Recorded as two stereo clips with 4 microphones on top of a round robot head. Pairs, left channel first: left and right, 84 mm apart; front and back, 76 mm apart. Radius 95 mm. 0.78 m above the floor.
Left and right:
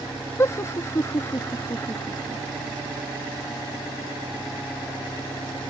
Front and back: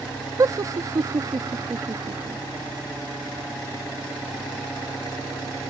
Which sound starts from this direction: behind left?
Laughter, at 0.4 s.